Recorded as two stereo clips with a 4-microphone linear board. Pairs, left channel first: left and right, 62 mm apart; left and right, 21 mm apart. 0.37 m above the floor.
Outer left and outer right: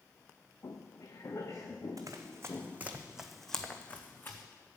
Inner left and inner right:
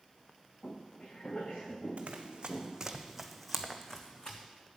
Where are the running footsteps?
55° right (ahead or behind), 1.2 m; by 4.4 s 35° left (ahead or behind), 1.4 m.